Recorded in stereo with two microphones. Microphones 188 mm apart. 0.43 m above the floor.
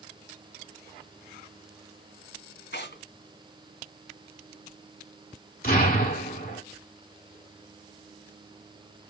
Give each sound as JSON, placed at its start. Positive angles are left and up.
{"t": 2.7, "sound": "tearing paper", "side_deg": 75, "distance_m": 3.0}
{"t": 5.6, "sound": "an explosion", "side_deg": 50, "distance_m": 2.0}